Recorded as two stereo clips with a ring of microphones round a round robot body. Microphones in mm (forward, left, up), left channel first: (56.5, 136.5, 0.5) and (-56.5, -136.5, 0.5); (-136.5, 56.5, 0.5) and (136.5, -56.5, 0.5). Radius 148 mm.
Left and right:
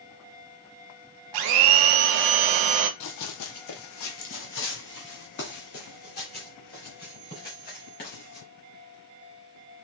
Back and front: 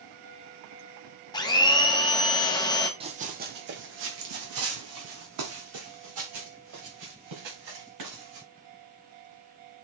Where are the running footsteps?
45° left, 0.8 m; by 8.5 s 5° left, 3.5 m.